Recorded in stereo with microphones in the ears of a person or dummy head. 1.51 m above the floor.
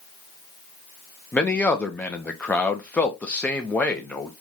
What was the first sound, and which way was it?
A man speaking, 15° left (ahead or behind).